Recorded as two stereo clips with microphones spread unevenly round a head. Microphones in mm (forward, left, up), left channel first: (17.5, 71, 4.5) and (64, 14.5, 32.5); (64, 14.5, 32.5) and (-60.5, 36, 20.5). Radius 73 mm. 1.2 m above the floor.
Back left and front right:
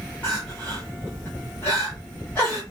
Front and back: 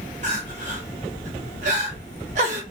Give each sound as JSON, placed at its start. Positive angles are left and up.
{"t": 0.2, "sound": "crying", "azimuth_deg": -150, "distance_m": 0.9}